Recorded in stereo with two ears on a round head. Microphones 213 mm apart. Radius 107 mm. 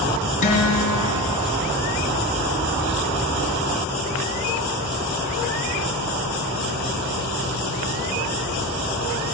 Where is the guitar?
35° left (ahead or behind), 4 m.